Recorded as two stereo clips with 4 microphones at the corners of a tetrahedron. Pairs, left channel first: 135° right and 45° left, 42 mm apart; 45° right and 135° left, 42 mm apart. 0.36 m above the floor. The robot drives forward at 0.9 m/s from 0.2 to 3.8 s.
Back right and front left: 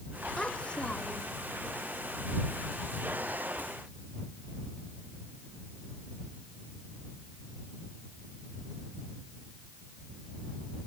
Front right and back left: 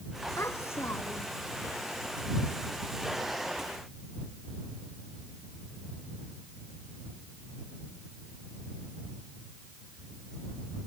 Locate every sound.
0.4 s a child speaking: 65° right; by 1.4 s 70° right